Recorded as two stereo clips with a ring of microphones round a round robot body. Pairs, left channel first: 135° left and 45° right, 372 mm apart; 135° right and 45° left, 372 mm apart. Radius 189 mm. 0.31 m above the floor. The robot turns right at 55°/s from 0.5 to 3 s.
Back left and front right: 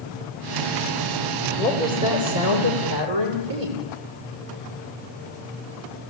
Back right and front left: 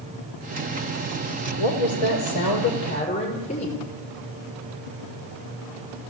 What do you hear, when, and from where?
1.6 s a woman speaking: 140° right, 9.5 m; by 3.8 s 65° right, 9.5 m